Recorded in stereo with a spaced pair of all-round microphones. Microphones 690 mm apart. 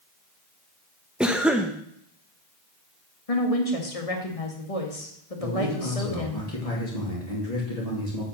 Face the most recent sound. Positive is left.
turn(degrees=60)  # may be behind; listen again after turning